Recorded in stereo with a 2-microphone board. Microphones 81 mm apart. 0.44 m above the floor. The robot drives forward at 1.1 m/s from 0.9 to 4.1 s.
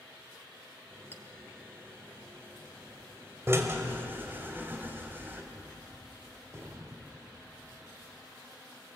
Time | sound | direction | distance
1.1 | a clink | 30° left (ahead or behind) | 1.1 m
3.5 | a drill | 35° right (ahead or behind) | 2 m
5.5 | a gunshot | 40° right (ahead or behind) | 1.5 m